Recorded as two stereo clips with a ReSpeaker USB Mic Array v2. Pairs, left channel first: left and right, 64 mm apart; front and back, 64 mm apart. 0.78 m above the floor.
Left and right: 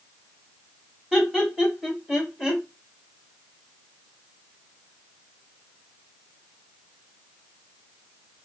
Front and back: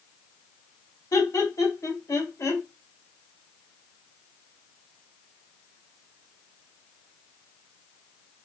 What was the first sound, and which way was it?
Laughter, 15° right.